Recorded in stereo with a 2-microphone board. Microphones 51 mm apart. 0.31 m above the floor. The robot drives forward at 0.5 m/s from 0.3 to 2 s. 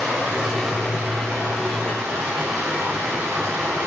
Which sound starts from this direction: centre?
Running water, at 0.0 s.